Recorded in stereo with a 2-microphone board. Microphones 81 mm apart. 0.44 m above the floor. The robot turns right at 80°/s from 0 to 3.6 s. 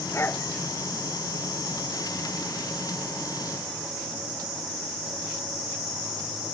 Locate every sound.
0.1 s a dog barking: 40° left (ahead or behind); by 0.5 s 15° left (ahead or behind)